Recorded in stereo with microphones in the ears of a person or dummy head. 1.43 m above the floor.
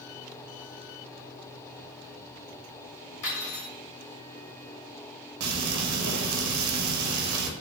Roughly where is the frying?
Right.